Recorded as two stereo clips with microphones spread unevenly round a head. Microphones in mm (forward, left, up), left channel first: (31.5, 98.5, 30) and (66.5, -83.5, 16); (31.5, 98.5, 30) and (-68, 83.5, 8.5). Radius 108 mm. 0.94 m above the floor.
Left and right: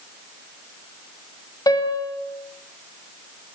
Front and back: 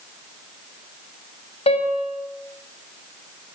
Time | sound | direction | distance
1.7 | a piano | 30° left | 6.5 m